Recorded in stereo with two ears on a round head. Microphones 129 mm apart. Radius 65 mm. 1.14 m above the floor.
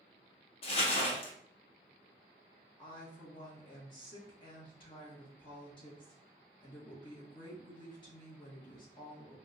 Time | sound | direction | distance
0.6 | crumpling | 40° left (ahead or behind) | 0.7 m
2.8 | a woman speaking | 35° left (ahead or behind) | 1.0 m